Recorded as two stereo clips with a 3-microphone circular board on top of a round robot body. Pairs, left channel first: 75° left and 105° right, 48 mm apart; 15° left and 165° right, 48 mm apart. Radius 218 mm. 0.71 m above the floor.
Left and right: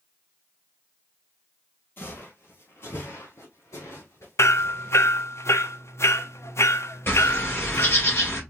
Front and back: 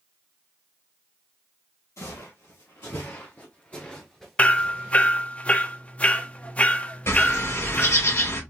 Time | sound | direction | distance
2.0 | footsteps | 30° left | 1.6 m
4.4 | hammering | 75° left | 0.9 m
7.1 | a bird | 35° left | 3.5 m